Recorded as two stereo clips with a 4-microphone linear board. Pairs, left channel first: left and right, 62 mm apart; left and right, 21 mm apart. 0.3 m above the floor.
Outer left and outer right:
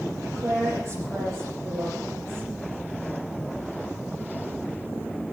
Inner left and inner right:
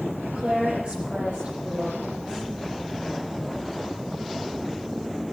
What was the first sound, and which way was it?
A woman speaking, 50° right (ahead or behind).